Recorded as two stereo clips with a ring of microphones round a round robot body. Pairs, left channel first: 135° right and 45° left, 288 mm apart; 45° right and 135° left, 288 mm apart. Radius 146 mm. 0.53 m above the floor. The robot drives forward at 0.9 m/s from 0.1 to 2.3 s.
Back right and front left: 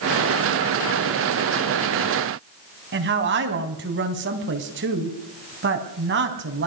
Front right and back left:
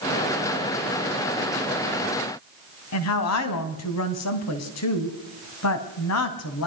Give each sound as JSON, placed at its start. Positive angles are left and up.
{"t": 2.9, "sound": "a woman speaking", "azimuth_deg": -10, "distance_m": 3.5}